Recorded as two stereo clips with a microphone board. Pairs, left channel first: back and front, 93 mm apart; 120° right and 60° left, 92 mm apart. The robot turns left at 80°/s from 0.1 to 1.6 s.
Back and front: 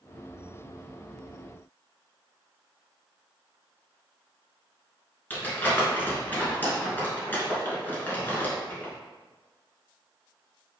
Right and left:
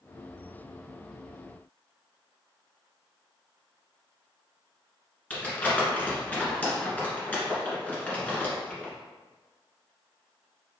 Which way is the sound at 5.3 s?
160° right.